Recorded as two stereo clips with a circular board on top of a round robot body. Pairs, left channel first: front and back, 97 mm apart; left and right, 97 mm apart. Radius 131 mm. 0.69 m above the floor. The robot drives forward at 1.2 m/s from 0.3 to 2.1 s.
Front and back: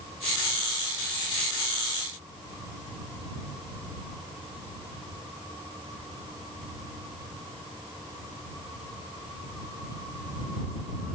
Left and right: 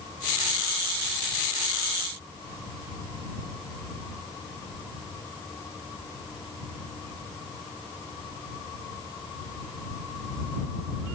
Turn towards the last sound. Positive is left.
No sound to turn to.